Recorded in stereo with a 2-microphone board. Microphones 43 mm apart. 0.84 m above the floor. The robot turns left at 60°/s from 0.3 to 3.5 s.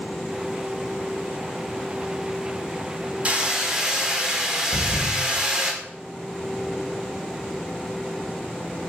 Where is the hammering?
30° right (ahead or behind), 1.3 m; by 5.7 s 15° right (ahead or behind), 1.3 m.